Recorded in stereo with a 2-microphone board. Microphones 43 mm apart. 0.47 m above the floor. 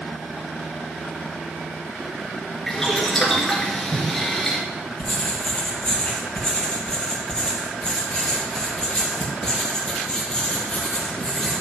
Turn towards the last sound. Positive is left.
turn(degrees=20)  # may be behind; listen again after turning